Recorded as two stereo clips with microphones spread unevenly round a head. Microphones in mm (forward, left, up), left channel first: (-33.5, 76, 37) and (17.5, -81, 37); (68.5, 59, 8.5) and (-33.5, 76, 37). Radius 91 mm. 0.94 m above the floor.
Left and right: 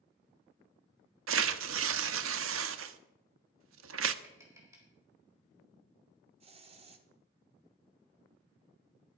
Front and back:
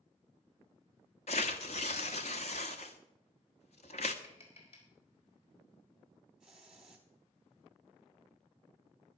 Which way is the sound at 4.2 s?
5° left.